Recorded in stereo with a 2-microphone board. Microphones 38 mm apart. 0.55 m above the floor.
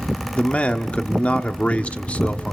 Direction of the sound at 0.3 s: 40° left (ahead or behind).